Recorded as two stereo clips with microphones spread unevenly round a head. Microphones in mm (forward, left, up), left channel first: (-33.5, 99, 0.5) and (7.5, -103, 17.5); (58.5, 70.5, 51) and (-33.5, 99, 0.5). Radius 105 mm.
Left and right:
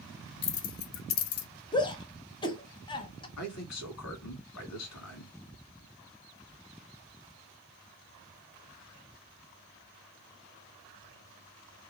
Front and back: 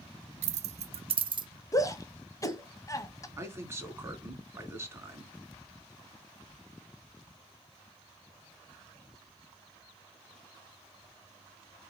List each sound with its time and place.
0.4 s keys jangling: 165° left, 0.5 m; by 1.5 s 115° left, 0.8 m
1.7 s a shout: 30° left, 1.1 m
3.4 s a man speaking: 100° left, 2 m